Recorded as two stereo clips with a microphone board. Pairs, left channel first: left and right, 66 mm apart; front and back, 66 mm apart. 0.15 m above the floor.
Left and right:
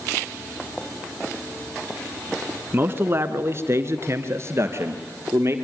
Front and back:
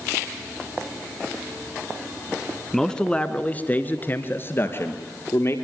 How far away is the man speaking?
About 1.6 m.